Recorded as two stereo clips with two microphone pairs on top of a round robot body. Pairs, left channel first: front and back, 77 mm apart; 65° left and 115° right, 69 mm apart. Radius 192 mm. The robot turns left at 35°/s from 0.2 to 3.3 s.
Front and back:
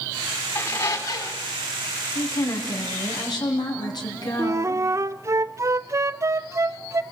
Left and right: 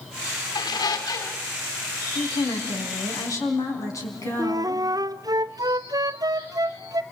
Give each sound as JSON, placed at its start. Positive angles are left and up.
{"t": 0.6, "sound": "a squeak", "azimuth_deg": 65, "distance_m": 3.0}
{"t": 2.1, "sound": "a woman speaking", "azimuth_deg": 70, "distance_m": 4.5}
{"t": 4.4, "sound": "a flute", "azimuth_deg": -135, "distance_m": 0.6}